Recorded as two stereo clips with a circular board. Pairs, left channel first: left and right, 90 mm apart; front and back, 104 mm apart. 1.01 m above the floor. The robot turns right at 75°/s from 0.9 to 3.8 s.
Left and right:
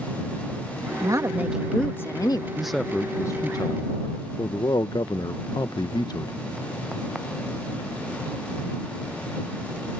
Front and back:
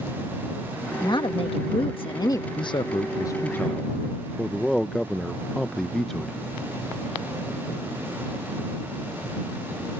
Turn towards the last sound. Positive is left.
turn(degrees=85)